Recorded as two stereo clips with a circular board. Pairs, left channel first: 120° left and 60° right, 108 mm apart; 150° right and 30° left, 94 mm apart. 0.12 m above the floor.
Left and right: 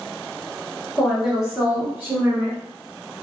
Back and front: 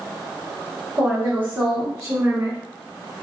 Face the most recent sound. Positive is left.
turn(degrees=-20)